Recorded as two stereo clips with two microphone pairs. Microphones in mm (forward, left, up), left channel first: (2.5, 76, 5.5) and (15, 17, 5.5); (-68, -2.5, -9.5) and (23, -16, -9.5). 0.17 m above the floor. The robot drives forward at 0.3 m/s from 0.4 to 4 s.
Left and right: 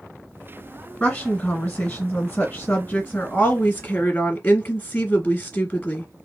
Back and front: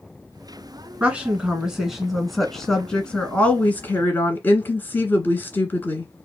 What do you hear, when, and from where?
1.0 s a woman speaking: 50° left, 1.4 m; by 6.1 s 135° left, 1.4 m